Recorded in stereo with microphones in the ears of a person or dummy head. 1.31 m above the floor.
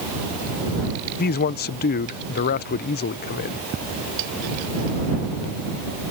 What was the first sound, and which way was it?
A man speaking, 45° left (ahead or behind).